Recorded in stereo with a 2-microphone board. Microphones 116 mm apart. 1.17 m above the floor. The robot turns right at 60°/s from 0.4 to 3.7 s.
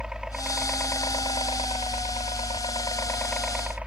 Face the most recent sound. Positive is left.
turn(degrees=-170)